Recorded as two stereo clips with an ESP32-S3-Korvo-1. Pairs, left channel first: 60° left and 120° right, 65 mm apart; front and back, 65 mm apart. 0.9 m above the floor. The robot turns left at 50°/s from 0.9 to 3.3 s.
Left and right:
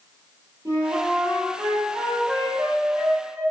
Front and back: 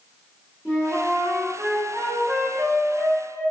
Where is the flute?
105° right, 1.6 m; by 3.4 s 135° left, 1.6 m.